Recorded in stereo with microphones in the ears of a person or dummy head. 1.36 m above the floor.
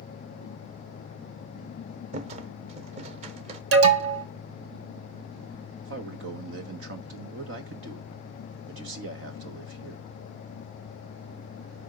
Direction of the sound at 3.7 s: 80° right.